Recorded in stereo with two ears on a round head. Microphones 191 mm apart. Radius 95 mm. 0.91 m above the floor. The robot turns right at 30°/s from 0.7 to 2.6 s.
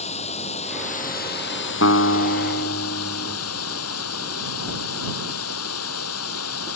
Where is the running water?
35° left; by 6.8 s 90° left.